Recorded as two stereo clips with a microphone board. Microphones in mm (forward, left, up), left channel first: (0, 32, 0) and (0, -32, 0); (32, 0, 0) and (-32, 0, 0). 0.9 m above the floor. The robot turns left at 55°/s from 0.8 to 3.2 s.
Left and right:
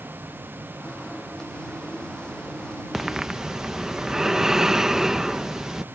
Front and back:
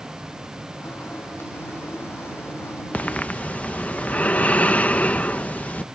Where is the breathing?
5° right; by 5.8 s 20° right.